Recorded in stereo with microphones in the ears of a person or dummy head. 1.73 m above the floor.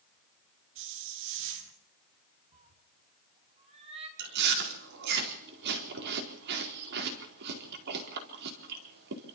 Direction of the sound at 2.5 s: 35° right (ahead or behind).